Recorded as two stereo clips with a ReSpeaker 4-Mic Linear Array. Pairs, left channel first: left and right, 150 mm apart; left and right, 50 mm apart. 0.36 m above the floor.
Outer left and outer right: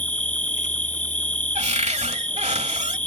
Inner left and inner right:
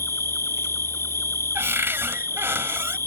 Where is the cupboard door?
50° right (ahead or behind).